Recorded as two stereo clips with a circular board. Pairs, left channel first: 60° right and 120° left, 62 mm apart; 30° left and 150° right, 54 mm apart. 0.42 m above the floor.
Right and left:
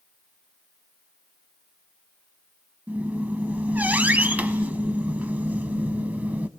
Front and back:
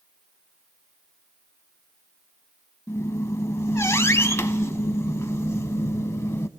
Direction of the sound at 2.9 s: 60° left.